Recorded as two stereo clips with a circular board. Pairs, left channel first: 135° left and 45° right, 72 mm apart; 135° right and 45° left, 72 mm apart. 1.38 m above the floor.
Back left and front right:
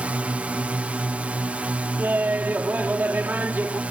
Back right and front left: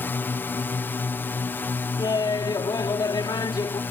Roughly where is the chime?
I don't hear a chime.